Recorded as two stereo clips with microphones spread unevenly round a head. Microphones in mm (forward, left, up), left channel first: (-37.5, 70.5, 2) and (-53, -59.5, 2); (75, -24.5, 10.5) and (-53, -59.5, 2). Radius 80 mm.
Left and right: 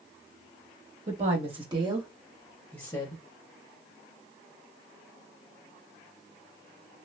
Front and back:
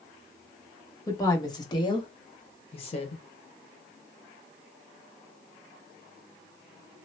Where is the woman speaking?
50° right, 1.6 m; by 3.2 s 45° left, 1.0 m.